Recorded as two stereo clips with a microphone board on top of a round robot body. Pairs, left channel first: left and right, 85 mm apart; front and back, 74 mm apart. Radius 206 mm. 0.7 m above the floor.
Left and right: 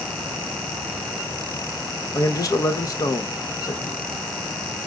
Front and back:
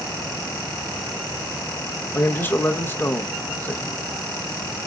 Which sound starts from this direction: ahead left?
A man speaking, at 2.1 s.